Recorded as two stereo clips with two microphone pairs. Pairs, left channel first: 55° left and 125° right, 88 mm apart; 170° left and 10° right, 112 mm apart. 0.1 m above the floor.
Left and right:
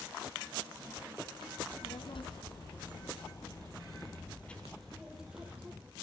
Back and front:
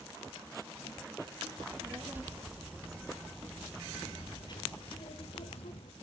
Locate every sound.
1.6 s a child speaking: 55° left, 2.5 m; by 5.9 s 165° left, 2 m